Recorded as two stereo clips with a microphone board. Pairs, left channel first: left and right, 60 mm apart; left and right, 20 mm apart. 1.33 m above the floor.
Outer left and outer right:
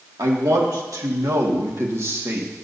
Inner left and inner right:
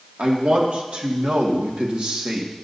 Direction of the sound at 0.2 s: 85° right.